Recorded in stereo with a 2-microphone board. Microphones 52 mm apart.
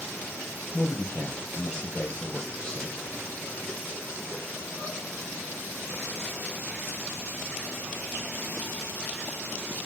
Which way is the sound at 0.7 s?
15° left (ahead or behind).